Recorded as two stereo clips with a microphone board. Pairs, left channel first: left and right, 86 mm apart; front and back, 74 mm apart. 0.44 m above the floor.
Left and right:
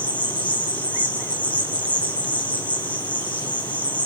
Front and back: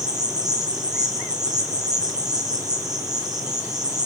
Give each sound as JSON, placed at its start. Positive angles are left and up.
{"t": 0.0, "sound": "an insect", "azimuth_deg": 160, "distance_m": 4.0}